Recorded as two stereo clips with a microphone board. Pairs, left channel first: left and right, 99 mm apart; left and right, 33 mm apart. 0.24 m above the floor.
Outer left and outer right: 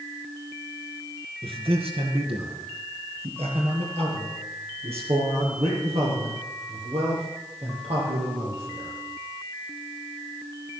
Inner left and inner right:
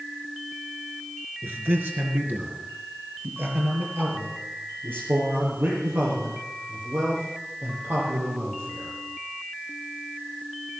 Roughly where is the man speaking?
Right.